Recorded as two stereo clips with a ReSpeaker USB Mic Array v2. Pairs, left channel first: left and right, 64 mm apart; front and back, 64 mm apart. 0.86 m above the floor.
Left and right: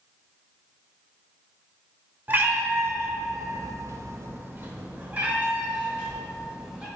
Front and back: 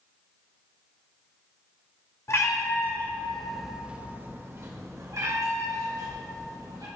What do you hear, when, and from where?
2.3 s a cat meowing: 35° right, 1.0 m; by 6.9 s 165° right, 2 m